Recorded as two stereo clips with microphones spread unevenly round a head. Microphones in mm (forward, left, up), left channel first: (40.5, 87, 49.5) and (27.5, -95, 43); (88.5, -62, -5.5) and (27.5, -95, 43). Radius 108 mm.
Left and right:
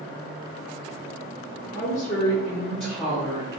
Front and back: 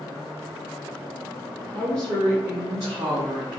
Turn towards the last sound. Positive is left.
turn(degrees=-165)